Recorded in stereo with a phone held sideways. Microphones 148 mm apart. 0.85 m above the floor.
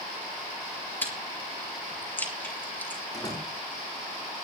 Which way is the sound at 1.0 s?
10° left (ahead or behind).